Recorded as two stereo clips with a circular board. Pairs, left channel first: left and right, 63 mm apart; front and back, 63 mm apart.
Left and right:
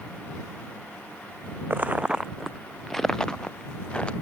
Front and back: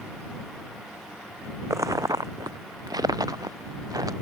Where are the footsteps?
145° right; by 4.1 s 160° left.